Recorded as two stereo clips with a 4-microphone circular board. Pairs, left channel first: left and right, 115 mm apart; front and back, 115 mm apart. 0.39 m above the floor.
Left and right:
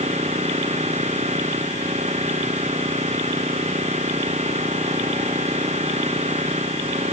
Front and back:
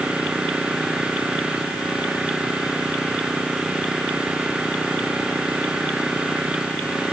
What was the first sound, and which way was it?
An engine running, 100° right.